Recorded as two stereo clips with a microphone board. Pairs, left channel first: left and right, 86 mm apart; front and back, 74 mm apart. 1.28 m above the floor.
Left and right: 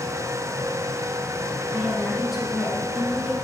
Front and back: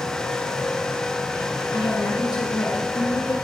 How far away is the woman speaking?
About 1.9 m.